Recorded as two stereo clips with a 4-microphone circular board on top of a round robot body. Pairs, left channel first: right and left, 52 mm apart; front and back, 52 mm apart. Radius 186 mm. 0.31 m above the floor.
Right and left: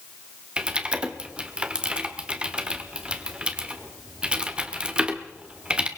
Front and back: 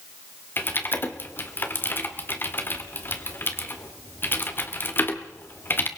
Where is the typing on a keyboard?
25° left, 2 m.